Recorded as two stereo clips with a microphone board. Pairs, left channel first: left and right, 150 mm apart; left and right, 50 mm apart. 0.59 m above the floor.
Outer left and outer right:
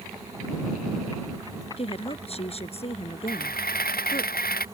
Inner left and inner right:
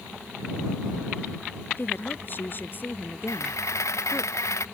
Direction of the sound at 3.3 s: 85° left.